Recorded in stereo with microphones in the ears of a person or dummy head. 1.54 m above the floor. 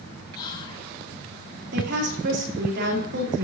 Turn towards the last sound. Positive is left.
turn(degrees=-60)  # may be behind; listen again after turning